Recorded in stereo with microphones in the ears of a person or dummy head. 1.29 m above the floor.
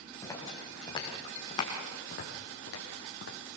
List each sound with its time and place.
0.2 s footsteps: 15° left (ahead or behind), 4 m; by 3.4 s 60° left (ahead or behind), 3 m